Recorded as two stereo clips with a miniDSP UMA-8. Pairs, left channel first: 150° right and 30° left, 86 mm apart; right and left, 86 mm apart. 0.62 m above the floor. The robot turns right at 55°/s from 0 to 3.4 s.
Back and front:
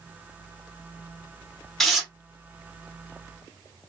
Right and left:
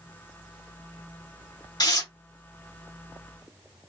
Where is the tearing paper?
65° right, 0.9 m; by 2.1 s 50° right, 0.9 m.